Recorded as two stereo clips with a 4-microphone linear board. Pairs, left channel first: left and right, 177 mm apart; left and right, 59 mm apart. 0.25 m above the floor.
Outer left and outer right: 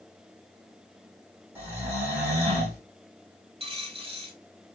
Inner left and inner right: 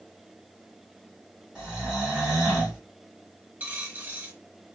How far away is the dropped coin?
About 1.0 m.